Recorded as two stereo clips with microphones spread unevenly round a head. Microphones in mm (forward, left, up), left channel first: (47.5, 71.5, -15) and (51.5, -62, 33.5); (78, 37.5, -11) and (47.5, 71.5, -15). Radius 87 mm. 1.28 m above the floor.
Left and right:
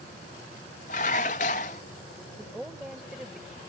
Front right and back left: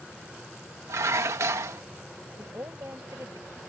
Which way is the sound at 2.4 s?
170° right.